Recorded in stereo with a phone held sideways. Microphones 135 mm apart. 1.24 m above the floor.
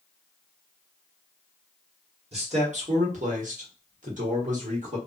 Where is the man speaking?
50° right (ahead or behind), 1.2 m; by 5.0 s 60° right (ahead or behind), 1.5 m.